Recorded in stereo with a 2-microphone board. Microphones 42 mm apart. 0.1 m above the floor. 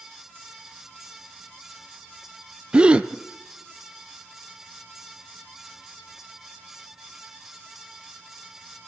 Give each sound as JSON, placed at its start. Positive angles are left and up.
{"t": 2.7, "sound": "a gasp", "side_deg": -25, "distance_m": 0.8}